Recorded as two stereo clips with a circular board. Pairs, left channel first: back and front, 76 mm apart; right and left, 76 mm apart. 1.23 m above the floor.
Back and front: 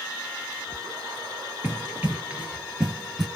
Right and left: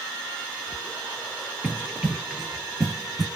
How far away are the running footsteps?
About 1.4 m.